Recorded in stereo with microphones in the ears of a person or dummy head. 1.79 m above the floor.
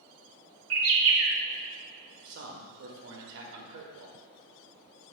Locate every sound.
0.7 s a bird: 70° right (ahead or behind), 0.6 m
2.2 s a man speaking: 60° right (ahead or behind), 0.9 m